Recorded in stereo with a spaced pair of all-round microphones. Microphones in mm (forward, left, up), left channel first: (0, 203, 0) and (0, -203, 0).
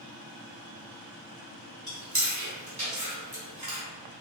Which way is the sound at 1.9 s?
45° right (ahead or behind).